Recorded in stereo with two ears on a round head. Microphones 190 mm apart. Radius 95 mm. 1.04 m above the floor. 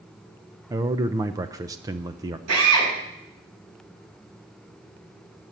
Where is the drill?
85° right, 7 m.